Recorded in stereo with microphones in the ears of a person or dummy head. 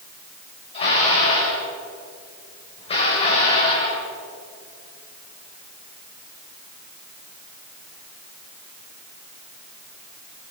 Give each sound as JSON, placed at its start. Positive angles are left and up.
{"t": 0.7, "sound": "dishes clattering", "side_deg": 35, "distance_m": 5.5}